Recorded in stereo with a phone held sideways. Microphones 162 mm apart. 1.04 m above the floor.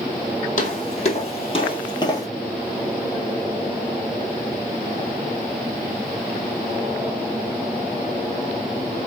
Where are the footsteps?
50° left (ahead or behind), 1.5 m; by 2.3 s 20° left (ahead or behind), 1.2 m.